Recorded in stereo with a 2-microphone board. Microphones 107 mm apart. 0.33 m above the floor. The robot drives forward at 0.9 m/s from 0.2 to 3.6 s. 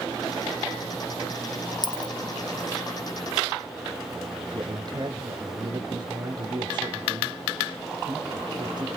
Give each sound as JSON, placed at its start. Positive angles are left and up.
{"t": 1.8, "sound": "a dropped coin", "side_deg": 45, "distance_m": 1.5}
{"t": 4.5, "sound": "a man speaking", "side_deg": -45, "distance_m": 1.7}